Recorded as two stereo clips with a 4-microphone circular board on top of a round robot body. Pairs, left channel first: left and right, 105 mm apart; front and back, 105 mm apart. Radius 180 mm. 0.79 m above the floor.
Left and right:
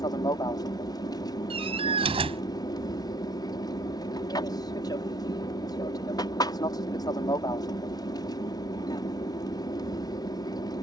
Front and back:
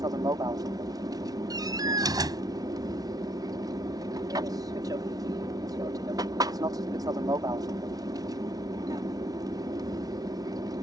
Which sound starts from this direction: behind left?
An aircraft, at 0.0 s.